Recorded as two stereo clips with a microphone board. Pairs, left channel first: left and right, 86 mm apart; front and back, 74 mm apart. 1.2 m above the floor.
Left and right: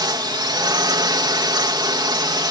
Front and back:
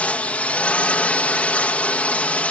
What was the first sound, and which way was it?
A drone, 70° right.